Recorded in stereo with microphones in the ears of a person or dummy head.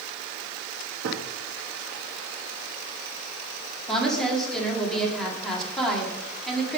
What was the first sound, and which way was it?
A gunshot, 65° right (ahead or behind).